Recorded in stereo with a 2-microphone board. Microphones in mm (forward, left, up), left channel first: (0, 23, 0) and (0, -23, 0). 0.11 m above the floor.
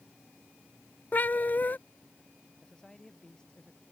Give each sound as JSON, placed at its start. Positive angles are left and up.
{"t": 1.1, "sound": "a cat meowing", "side_deg": 45}
{"t": 2.6, "sound": "a man speaking", "side_deg": 15}